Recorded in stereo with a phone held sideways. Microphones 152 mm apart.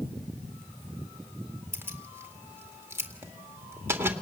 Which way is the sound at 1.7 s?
15° right (ahead or behind).